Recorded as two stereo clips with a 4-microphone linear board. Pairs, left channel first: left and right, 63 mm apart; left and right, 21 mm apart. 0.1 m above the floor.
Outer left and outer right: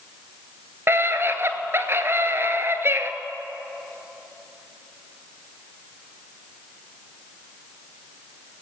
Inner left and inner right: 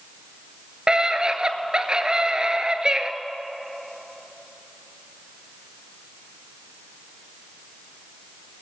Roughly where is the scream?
Right.